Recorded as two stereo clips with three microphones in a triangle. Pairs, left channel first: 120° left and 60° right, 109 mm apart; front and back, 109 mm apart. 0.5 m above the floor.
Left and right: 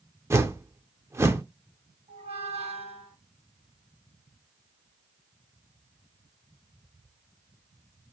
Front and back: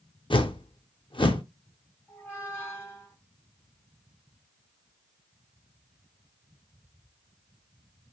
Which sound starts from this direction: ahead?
A whoosh, at 0.3 s.